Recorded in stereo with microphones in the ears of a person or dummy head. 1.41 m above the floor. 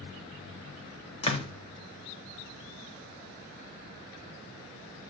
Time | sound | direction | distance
1.2 | a door slam | 35° left (ahead or behind) | 0.6 m